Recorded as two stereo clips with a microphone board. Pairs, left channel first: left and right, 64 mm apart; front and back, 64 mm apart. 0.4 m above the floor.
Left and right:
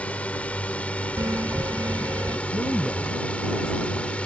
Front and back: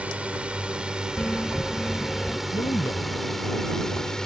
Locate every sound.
0.0 s a drone: 135° left; by 4.3 s 60° left
1.2 s a bell: 75° right
2.5 s a man speaking: 5° right